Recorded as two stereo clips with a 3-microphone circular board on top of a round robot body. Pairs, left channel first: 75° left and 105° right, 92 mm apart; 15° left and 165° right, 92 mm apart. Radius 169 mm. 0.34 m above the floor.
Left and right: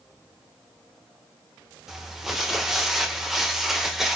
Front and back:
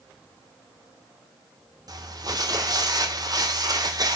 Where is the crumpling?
170° left, 1.8 m.